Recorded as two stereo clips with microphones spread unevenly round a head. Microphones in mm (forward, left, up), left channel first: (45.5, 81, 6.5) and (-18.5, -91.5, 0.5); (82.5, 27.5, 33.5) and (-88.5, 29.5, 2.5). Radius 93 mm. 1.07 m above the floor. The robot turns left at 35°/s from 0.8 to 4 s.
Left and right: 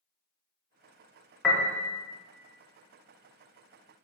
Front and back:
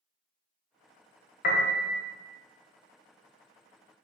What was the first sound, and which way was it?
A piano, 15° right.